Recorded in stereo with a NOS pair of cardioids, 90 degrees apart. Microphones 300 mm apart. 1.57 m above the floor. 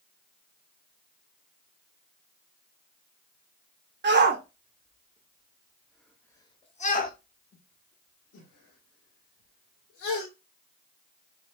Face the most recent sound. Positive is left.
turn(degrees=75)